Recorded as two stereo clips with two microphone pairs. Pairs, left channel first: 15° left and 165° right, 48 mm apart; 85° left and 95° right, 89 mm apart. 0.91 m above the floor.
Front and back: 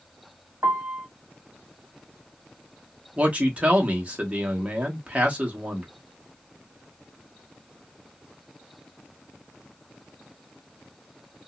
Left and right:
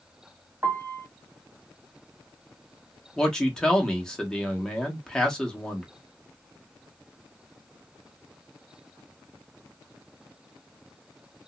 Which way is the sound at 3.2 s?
160° left.